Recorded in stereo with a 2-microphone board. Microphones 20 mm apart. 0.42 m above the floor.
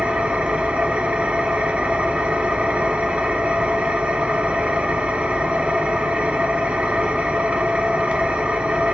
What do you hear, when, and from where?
0.0 s an engine running: 75° right (ahead or behind), 0.8 m